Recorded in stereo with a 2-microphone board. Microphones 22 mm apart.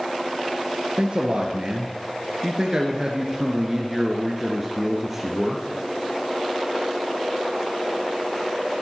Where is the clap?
I don't hear a clap.